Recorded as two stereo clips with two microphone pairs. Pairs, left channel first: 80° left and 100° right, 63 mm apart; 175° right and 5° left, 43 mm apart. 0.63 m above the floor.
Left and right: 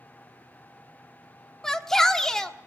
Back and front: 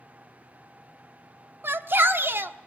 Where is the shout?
Straight ahead, 1.3 m.